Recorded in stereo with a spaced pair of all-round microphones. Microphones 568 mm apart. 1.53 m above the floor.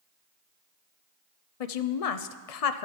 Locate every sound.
1.6 s a woman speaking: 90° left, 0.6 m